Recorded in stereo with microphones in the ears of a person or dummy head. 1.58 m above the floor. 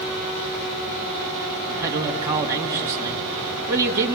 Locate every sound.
1.7 s a man speaking: 15° right (ahead or behind), 2.5 m